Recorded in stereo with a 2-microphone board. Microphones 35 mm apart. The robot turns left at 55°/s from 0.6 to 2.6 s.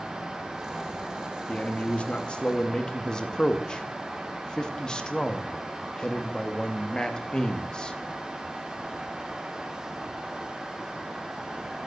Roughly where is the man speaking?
Left.